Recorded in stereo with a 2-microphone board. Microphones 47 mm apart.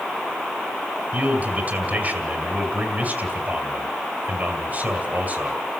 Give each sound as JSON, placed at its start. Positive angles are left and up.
{"t": 1.1, "sound": "a man speaking", "side_deg": -40, "distance_m": 2.5}